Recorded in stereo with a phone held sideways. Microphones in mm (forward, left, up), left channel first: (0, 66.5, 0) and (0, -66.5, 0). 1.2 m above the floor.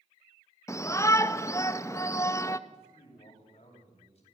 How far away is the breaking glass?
No breaking glass in this recording.